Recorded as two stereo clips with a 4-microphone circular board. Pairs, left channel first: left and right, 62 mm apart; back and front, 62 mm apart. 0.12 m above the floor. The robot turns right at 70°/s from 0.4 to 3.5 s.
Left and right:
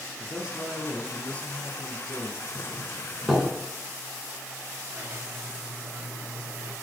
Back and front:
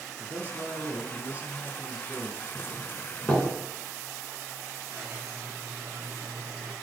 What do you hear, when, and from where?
0.2 s a man speaking: 25° right, 1.5 m; by 2.5 s 120° left, 1.5 m
2.5 s a doorbell: 125° left, 1.6 m; by 3.5 s 170° right, 1.6 m
4.9 s a squeak: 55° right, 1.7 m